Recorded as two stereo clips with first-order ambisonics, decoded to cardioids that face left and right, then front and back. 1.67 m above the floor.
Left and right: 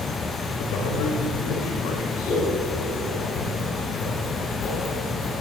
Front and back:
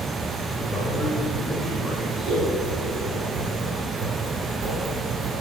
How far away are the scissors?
About 5 m.